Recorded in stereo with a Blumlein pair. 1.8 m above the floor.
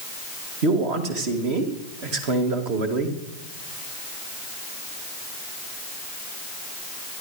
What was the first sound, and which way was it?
A man speaking, 45° right.